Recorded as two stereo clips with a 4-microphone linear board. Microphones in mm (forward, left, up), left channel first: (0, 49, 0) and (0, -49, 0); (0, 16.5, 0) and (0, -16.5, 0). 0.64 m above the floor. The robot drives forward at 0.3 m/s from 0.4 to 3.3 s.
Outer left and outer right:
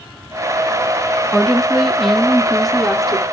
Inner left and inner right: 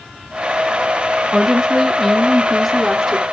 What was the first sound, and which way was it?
A woman speaking, centre (ahead or behind).